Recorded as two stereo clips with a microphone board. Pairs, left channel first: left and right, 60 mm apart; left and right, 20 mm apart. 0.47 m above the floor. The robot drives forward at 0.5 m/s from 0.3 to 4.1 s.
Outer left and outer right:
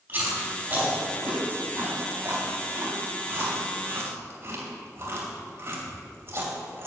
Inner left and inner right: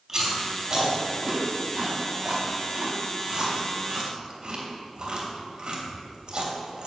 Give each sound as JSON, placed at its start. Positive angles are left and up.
{"t": 0.1, "sound": "chewing", "side_deg": -25, "distance_m": 4.0}